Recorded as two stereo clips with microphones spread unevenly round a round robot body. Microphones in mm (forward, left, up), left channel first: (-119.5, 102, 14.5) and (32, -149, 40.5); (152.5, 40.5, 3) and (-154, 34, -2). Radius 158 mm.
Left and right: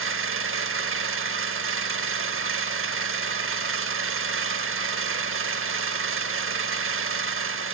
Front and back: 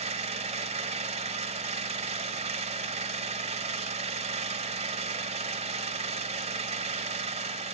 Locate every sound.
0.0 s an engine running: 110° right, 1.1 m